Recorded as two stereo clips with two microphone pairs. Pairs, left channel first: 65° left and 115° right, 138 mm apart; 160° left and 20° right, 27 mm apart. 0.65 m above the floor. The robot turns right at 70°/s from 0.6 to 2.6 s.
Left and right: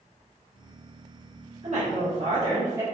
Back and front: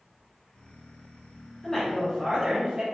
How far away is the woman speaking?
About 1.5 m.